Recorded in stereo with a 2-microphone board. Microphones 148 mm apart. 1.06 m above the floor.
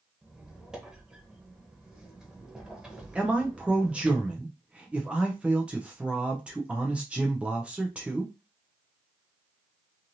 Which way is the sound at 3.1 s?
10° right (ahead or behind).